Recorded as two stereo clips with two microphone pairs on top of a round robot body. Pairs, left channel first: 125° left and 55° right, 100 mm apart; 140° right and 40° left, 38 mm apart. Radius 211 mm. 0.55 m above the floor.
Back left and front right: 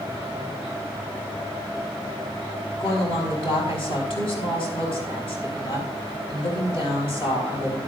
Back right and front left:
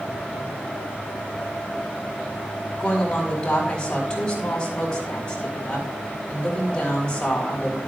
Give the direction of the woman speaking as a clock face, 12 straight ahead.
7 o'clock.